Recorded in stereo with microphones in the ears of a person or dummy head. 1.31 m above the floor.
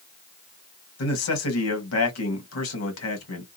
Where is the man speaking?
90° left, 1.5 m.